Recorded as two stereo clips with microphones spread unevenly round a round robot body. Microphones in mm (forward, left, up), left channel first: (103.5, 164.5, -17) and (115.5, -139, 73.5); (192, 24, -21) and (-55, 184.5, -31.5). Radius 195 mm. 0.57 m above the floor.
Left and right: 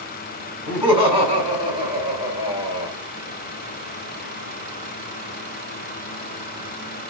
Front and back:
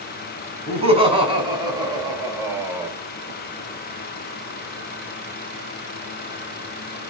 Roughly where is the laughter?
Left.